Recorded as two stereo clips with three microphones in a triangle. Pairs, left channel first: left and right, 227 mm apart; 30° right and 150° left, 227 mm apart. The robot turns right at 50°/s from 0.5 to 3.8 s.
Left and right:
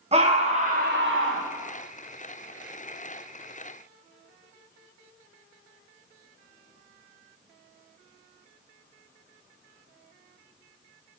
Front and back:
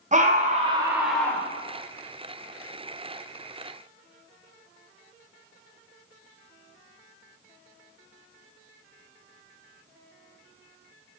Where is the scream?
150° right, 1.1 m; by 1.5 s 100° right, 1.1 m.